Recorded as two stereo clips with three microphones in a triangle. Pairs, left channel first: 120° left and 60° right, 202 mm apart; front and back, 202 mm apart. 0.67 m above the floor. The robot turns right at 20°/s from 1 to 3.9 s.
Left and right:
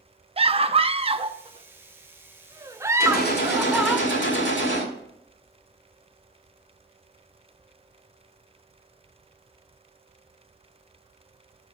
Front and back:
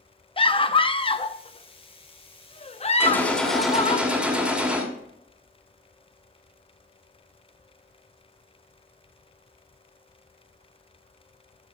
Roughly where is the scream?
Ahead right.